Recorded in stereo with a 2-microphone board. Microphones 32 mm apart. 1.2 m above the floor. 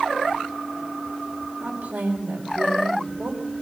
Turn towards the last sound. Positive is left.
turn(degrees=-80)